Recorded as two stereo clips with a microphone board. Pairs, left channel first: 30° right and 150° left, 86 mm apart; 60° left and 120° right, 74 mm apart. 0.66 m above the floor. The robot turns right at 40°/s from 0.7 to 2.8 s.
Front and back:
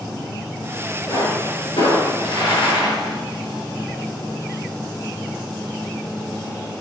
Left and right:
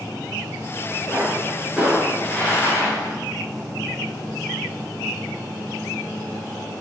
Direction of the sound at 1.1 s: 65° right.